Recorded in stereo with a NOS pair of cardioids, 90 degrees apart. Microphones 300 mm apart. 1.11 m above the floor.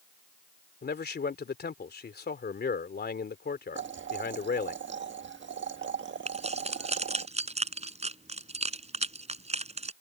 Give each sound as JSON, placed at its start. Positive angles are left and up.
{"t": 0.8, "sound": "a man speaking", "azimuth_deg": 35}
{"t": 3.8, "sound": "boiling", "azimuth_deg": -40}
{"t": 6.3, "sound": "keys jangling", "azimuth_deg": -20}